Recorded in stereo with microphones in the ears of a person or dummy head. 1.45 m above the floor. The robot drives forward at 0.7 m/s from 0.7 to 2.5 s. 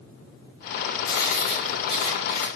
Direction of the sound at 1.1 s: 60° left (ahead or behind).